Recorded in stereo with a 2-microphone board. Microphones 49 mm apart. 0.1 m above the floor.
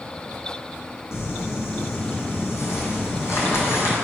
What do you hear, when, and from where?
1.1 s crumpling: 60° left (ahead or behind), 2.0 m